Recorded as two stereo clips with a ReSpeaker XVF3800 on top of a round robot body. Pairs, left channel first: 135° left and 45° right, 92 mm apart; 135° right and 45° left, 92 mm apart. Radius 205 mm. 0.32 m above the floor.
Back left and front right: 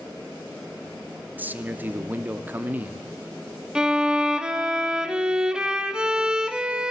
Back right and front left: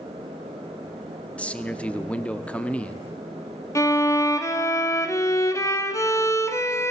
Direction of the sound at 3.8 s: 120° right.